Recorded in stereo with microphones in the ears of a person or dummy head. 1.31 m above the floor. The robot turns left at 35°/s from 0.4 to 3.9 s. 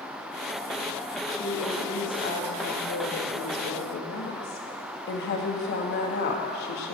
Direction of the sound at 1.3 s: 165° left.